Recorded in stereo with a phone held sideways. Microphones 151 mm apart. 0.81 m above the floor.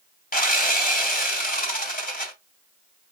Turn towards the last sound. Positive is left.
turn(degrees=65)  # may be behind; listen again after turning